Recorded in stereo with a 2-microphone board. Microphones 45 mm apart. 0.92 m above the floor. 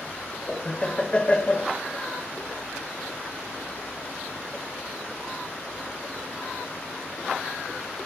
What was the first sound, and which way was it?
Laughter, 20° left (ahead or behind).